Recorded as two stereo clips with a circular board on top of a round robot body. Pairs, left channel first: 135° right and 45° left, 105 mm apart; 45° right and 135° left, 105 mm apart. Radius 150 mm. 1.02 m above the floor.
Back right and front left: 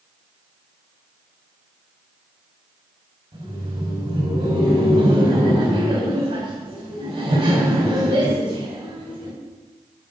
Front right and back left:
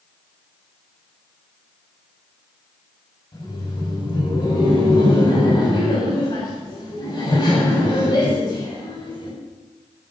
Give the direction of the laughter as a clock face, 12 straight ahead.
12 o'clock.